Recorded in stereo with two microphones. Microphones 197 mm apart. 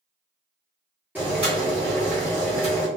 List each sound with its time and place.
1.1 s boiling: 10° right (ahead or behind), 1.6 m